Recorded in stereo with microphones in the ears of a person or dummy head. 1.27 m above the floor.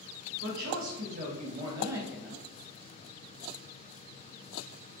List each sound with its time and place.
0.4 s a woman speaking: 75° right (ahead or behind), 1.0 m; by 2.5 s 10° left (ahead or behind), 0.7 m